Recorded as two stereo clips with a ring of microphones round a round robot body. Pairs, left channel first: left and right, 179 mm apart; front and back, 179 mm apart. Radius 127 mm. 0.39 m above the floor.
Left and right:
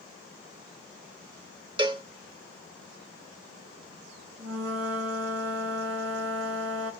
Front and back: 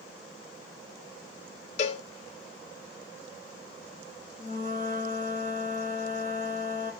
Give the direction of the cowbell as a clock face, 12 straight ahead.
1 o'clock.